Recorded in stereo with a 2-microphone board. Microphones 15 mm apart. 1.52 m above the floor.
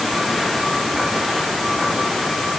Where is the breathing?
I don't hear breathing.